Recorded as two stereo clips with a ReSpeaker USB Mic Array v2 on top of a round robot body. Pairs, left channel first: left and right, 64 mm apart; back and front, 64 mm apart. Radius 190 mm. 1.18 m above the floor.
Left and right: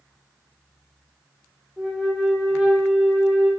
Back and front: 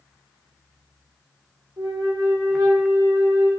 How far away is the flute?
About 0.6 m.